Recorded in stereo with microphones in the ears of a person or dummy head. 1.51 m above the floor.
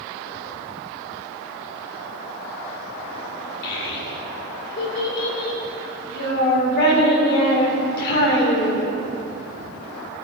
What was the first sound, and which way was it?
A child speaking, 55° left (ahead or behind).